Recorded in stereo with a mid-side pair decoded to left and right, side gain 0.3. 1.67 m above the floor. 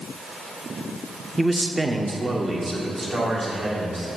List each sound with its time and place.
1.4 s a man speaking: 10° right, 0.7 m; by 4.1 s 45° right, 3 m